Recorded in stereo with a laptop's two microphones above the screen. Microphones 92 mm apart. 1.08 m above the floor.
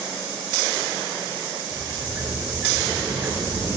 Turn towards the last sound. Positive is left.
turn(degrees=-25)  # may be behind; listen again after turning